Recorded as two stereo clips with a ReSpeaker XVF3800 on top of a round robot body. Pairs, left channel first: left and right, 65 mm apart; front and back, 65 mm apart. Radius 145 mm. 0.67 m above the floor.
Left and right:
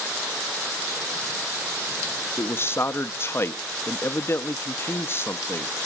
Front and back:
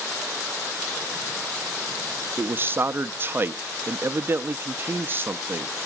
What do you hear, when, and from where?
2.4 s a man speaking: 130° left, 1.0 m